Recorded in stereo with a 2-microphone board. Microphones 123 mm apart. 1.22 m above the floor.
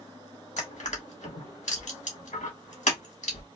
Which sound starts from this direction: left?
Crushing, at 0.6 s.